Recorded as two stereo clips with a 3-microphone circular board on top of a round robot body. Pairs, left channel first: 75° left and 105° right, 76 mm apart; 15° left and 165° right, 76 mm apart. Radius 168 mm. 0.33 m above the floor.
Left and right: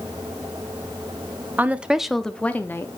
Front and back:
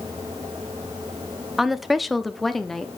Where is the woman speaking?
85° right, 0.9 m; by 2.9 s 95° left, 1.0 m.